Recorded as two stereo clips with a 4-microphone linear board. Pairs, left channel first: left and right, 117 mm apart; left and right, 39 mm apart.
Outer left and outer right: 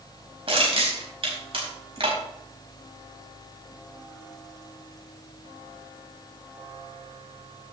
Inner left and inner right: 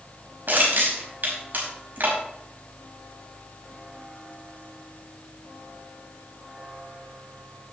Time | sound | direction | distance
0.5 | crushing | 60° right (ahead or behind) | 5 m